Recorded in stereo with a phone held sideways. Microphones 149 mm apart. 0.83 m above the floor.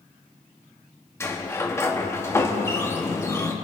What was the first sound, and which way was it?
A sliding door, 20° left (ahead or behind).